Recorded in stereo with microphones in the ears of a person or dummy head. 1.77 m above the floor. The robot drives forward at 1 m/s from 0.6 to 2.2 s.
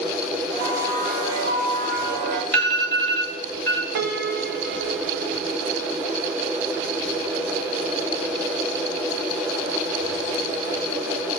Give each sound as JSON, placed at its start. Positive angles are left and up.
{"t": 0.5, "sound": "a bell", "side_deg": -50, "distance_m": 6.0}
{"t": 2.5, "sound": "an alarm", "side_deg": 10, "distance_m": 5.0}
{"t": 4.0, "sound": "a piano", "side_deg": -55, "distance_m": 1.1}